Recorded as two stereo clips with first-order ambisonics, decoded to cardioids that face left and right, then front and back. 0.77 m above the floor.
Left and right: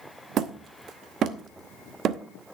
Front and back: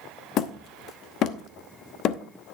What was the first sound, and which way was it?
Hammering, 40° right.